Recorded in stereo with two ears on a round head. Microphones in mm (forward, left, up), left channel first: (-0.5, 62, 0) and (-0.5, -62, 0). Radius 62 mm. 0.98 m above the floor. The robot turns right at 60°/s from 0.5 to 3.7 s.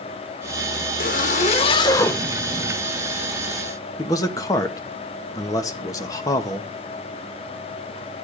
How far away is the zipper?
About 1.2 m.